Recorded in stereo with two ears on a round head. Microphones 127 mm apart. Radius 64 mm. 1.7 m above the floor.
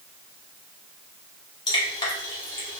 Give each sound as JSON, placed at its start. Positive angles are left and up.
{"t": 1.7, "sound": "dripping", "side_deg": 30, "distance_m": 1.0}